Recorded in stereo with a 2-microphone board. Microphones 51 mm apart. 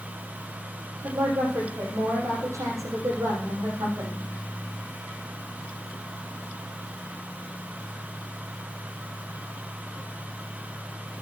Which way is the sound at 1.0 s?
80° right.